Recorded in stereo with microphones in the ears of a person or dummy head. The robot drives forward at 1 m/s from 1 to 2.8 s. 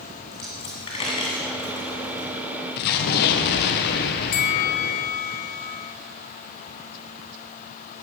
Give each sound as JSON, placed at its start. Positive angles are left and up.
{"t": 0.3, "sound": "a dropped coin", "side_deg": 20, "distance_m": 1.9}
{"t": 2.8, "sound": "an explosion", "side_deg": 50, "distance_m": 1.2}
{"t": 4.3, "sound": "a bell", "side_deg": 40, "distance_m": 0.7}